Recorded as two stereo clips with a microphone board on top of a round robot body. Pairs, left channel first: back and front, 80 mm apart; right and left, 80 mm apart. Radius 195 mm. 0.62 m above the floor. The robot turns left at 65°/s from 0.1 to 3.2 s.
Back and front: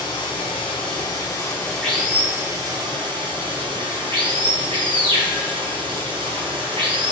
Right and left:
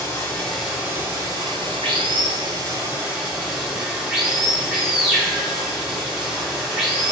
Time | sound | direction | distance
0.0 | running water | 150° right | 1.8 m